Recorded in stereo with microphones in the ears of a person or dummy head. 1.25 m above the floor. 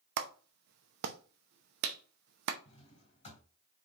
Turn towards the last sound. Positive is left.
turn(degrees=40)  # may be behind; listen again after turning